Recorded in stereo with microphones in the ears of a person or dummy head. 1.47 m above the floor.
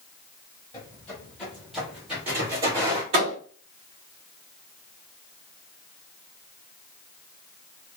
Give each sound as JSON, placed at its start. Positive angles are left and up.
{"t": 0.7, "sound": "footsteps", "side_deg": 15, "distance_m": 1.9}
{"t": 3.1, "sound": "a thud", "side_deg": -30, "distance_m": 1.2}